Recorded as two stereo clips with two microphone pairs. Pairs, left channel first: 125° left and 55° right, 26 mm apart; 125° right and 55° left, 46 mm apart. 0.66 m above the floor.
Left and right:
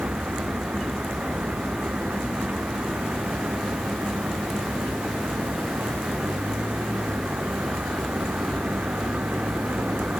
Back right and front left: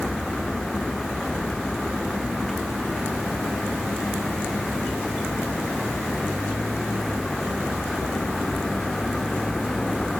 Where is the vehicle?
40° right.